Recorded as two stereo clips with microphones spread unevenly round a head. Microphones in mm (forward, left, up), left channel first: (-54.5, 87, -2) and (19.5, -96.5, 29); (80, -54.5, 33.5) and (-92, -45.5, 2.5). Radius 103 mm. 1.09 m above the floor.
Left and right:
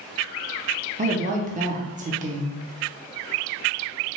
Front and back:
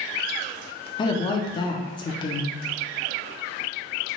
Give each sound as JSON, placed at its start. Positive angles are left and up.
{"t": 1.0, "sound": "a woman speaking", "azimuth_deg": -55, "distance_m": 0.6}